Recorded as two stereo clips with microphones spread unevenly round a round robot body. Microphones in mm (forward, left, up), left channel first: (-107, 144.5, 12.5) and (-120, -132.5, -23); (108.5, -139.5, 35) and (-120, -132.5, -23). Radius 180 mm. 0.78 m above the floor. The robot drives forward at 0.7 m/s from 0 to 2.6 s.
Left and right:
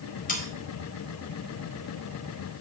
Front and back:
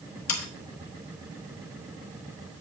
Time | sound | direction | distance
0.3 | sawing | 20° left | 1.0 m